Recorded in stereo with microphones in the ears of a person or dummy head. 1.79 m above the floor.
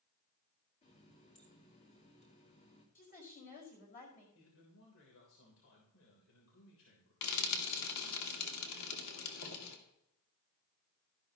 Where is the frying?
85° left, 2 m.